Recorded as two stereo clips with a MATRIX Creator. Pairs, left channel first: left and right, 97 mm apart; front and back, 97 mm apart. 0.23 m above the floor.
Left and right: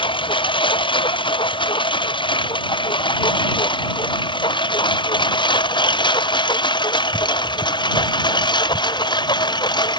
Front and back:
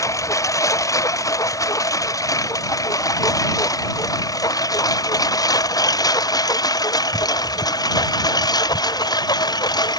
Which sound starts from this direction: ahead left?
A lawn mower, at 0.0 s.